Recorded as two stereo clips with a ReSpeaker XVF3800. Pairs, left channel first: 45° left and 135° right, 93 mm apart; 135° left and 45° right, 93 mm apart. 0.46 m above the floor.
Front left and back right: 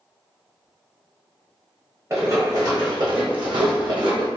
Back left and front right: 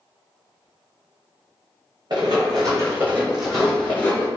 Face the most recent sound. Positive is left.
turn(degrees=-165)